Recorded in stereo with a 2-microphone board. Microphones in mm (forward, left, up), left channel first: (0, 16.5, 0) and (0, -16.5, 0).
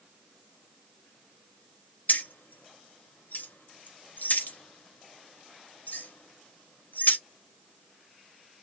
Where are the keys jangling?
65° left (ahead or behind), 0.8 m.